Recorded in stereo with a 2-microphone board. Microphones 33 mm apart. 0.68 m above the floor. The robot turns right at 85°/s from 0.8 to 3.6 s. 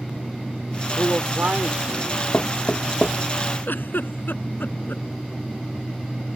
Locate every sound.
1.0 s a man speaking: 130° right; by 2.2 s 20° right
2.3 s knocking: 60° left (ahead or behind); by 3.2 s 15° left (ahead or behind)
3.7 s a giggle: 90° left